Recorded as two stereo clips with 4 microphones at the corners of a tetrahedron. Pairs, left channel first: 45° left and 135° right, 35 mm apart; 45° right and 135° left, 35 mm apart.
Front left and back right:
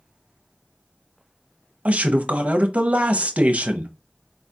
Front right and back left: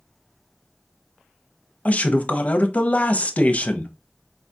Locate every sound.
1.9 s a man speaking: 90° right, 0.6 m